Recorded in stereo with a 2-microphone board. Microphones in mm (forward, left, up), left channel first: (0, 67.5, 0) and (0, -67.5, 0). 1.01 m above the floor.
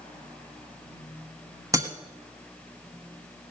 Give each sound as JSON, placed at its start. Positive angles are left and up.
{"t": 1.7, "sound": "breaking glass", "side_deg": -25, "distance_m": 1.3}